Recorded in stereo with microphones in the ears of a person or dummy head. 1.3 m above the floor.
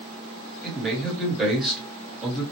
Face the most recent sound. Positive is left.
turn(degrees=0)  # may be behind; listen again after turning